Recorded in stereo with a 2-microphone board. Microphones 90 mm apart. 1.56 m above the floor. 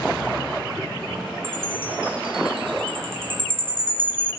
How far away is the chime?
About 7 m.